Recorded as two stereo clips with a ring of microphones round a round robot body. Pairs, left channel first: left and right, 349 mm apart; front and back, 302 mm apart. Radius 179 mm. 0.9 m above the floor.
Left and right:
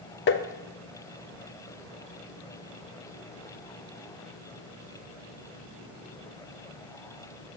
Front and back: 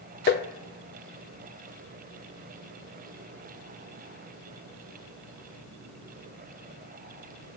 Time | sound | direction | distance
0.3 | tapping | 45° left | 0.7 m